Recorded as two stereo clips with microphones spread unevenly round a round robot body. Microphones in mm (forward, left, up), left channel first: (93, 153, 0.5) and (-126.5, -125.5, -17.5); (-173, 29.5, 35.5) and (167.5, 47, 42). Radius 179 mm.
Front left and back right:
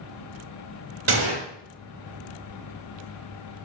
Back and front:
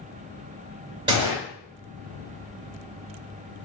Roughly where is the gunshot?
Right.